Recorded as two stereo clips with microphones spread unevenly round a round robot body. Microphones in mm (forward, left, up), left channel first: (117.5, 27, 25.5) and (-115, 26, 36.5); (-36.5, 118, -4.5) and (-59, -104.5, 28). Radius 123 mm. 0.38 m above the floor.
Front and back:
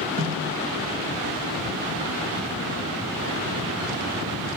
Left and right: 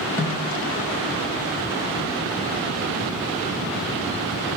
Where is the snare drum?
160° left, 1.3 m.